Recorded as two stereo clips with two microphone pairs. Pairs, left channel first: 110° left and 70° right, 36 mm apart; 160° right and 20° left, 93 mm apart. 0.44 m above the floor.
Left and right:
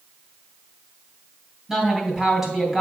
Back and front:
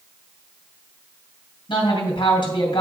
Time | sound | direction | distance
1.7 | a woman speaking | 145° right | 2.5 m